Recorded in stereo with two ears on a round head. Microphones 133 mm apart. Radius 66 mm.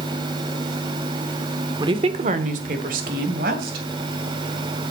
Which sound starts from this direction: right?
A woman speaking, at 1.8 s.